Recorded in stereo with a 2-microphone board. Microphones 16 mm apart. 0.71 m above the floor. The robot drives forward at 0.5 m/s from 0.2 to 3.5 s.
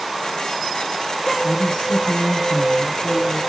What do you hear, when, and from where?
1.4 s a woman speaking: 55° left (ahead or behind), 6.5 m; by 3.4 s 65° left (ahead or behind), 6 m